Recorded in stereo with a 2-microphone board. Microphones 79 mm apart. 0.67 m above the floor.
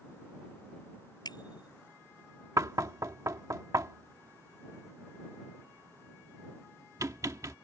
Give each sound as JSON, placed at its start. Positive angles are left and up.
{"t": 1.2, "sound": "a bicycle bell", "side_deg": 60}
{"t": 2.6, "sound": "knocking", "side_deg": -40}